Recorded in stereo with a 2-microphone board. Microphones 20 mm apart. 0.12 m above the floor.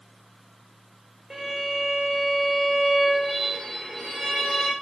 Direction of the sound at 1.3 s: 30° right (ahead or behind).